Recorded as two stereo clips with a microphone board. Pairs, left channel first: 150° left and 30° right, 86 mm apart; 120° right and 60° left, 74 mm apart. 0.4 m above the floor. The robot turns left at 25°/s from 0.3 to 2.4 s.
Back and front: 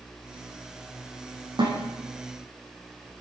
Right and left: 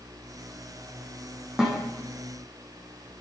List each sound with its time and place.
1.6 s a snare drum: 20° right, 8 m; by 1.8 s 25° right, 8 m